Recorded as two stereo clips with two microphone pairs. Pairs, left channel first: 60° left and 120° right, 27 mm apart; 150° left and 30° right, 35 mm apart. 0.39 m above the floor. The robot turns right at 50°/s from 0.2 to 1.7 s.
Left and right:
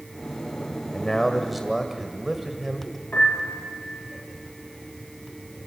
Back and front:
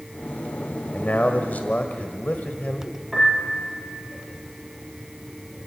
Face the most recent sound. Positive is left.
turn(degrees=60)